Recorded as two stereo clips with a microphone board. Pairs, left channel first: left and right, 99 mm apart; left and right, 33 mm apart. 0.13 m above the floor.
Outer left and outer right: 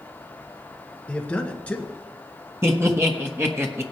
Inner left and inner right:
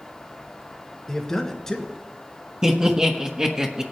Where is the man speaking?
10° left (ahead or behind), 1.6 m.